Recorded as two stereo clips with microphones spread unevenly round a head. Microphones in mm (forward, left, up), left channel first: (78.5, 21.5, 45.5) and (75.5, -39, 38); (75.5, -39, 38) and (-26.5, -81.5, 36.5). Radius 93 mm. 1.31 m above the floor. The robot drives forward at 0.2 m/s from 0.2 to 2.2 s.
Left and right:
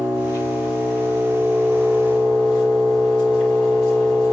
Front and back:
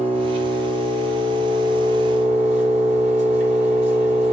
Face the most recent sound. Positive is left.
turn(degrees=150)